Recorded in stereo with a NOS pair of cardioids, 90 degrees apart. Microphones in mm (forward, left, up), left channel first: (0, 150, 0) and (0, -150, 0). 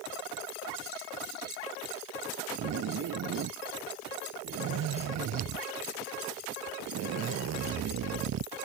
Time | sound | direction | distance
2.6 | a zipper | 60° right | ?